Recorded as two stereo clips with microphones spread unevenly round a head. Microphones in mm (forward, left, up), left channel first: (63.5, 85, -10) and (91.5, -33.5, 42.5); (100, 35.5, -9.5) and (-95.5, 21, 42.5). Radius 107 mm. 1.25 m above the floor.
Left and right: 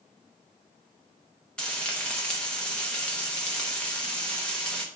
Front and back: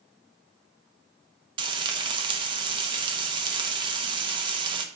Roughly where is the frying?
Behind right.